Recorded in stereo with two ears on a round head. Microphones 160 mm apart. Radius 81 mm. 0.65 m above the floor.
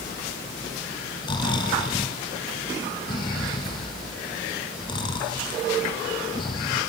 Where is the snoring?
25° left (ahead or behind), 1.9 m.